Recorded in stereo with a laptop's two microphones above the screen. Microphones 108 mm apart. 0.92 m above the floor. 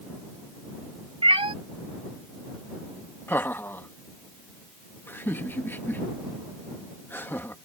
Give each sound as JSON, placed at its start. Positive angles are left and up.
{"t": 1.2, "sound": "a cat meowing", "side_deg": -55}
{"t": 3.3, "sound": "laughter", "side_deg": 20}